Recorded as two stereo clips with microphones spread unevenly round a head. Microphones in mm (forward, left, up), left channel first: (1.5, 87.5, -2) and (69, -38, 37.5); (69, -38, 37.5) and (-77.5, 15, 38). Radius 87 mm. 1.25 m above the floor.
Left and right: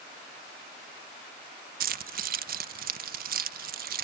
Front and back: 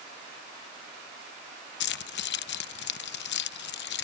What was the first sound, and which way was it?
Keys jangling, 40° right.